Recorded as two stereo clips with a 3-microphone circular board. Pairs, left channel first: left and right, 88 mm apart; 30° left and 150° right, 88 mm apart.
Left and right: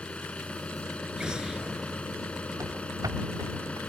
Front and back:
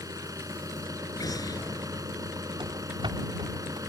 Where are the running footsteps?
140° right; by 3.8 s 130° right.